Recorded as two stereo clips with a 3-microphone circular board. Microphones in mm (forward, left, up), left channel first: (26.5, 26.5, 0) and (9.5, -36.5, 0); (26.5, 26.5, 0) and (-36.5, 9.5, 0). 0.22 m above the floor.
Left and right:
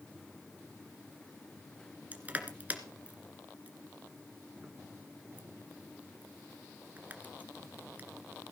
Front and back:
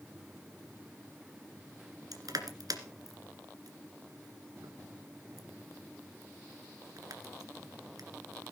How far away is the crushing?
About 1.8 m.